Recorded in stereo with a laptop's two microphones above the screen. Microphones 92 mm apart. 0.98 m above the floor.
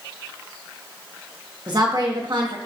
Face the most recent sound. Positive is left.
turn(degrees=-50)  # may be behind; listen again after turning